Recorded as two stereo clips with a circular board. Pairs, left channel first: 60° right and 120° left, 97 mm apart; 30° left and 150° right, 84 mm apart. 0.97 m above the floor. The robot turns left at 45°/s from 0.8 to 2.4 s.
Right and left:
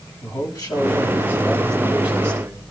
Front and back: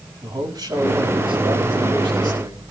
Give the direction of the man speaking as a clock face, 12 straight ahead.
4 o'clock.